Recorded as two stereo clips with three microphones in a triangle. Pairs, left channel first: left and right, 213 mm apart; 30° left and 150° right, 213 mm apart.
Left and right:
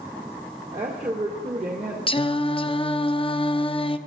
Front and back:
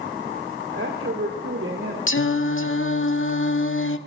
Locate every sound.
0.7 s a woman speaking: 150° right, 2 m
2.1 s singing: 30° left, 0.5 m